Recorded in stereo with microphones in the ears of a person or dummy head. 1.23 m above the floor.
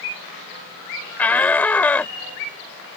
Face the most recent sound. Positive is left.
turn(degrees=10)  # may be behind; listen again after turning